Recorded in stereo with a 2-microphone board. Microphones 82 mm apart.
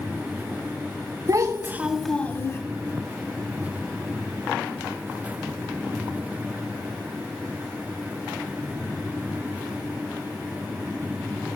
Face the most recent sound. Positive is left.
turn(degrees=35)  # may be behind; listen again after turning